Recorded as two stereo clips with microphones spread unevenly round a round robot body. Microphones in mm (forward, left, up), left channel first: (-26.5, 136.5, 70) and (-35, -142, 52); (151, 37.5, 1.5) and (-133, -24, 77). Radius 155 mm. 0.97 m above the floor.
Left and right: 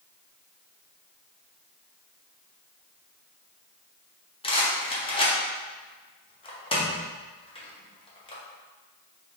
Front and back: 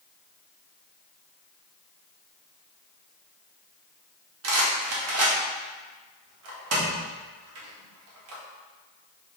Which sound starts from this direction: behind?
A rattle, at 4.4 s.